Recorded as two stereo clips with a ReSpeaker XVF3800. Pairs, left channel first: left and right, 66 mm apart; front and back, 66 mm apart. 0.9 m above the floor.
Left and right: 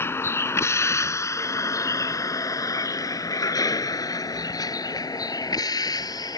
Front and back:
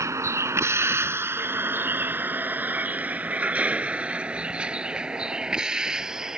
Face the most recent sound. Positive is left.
turn(degrees=100)